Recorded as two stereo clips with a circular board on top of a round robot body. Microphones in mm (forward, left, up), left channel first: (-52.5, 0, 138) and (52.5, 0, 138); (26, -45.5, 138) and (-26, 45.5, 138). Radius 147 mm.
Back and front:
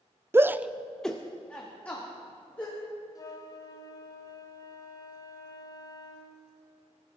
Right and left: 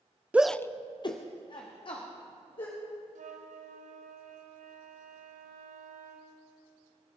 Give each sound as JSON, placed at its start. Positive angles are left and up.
{"t": 0.3, "sound": "a shout", "azimuth_deg": 50, "distance_m": 0.7}
{"t": 3.1, "sound": "a flute", "azimuth_deg": 120, "distance_m": 1.2}